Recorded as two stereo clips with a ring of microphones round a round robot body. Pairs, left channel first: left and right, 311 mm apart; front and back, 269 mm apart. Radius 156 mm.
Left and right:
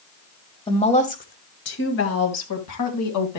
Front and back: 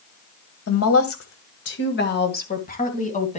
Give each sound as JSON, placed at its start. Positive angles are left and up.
{"t": 0.7, "sound": "a woman speaking", "azimuth_deg": 15, "distance_m": 2.0}